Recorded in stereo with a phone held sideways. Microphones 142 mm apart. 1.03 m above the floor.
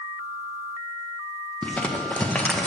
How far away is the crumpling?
About 0.8 m.